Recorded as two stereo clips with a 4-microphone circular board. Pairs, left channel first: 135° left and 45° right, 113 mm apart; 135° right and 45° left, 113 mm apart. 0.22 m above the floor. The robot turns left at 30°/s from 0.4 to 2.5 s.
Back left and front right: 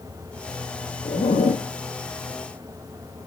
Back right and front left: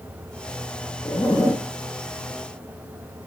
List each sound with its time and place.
1.1 s a zipper: 170° left, 2 m; by 1.7 s 150° left, 2 m